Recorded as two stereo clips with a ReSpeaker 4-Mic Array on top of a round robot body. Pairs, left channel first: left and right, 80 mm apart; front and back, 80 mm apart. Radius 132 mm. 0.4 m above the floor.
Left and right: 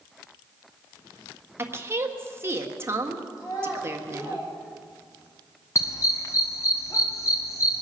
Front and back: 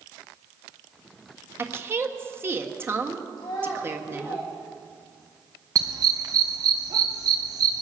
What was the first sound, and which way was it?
A woman speaking, 135° right.